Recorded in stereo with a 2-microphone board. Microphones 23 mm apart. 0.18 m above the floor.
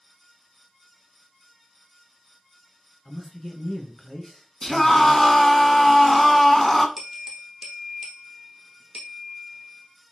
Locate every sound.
3.0 s a man speaking: 15° left (ahead or behind), 2.5 m
4.6 s a scream: 15° left (ahead or behind), 1.5 m
7.0 s a bell: 20° right (ahead or behind), 2.5 m